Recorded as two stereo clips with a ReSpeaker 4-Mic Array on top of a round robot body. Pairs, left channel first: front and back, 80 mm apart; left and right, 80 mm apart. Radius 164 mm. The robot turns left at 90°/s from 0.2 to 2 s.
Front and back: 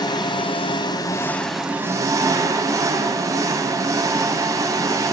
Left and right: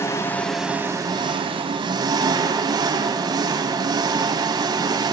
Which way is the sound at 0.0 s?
30° left.